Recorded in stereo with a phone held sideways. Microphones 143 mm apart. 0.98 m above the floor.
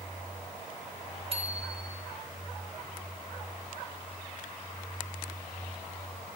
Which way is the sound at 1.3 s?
45° right (ahead or behind).